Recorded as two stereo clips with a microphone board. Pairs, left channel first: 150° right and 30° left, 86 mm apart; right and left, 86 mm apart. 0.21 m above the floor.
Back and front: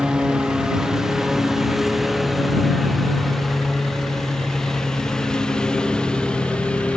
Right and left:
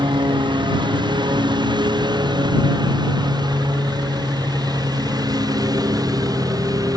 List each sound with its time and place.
0.0 s a lawn mower: 110° left; by 7.0 s 130° left